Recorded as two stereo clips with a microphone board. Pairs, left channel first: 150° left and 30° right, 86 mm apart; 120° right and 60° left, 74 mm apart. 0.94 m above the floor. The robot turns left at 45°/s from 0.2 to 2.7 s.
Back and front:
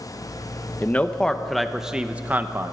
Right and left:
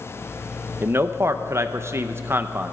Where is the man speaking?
95° left, 0.6 m; by 2.7 s 10° left, 0.6 m.